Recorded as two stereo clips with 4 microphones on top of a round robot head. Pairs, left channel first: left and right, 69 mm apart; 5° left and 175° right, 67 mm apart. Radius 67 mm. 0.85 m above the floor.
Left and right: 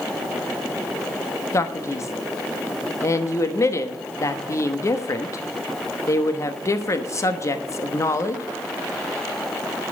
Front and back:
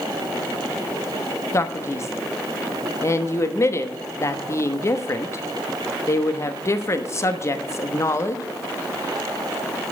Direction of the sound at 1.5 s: 50° left.